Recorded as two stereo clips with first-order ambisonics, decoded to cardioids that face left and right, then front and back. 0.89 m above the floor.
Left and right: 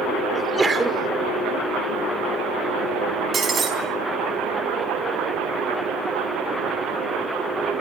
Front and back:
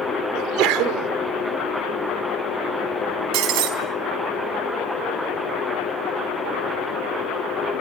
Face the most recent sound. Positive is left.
turn(degrees=-160)